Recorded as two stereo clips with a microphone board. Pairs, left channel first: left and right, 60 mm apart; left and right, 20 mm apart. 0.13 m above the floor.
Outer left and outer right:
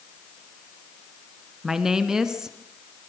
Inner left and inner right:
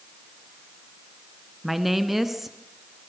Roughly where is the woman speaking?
Centre.